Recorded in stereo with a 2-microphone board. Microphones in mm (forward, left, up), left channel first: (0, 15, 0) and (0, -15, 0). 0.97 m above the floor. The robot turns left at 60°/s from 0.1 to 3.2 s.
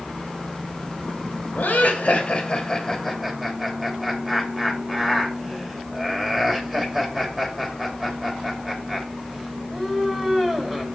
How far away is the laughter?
About 2.5 m.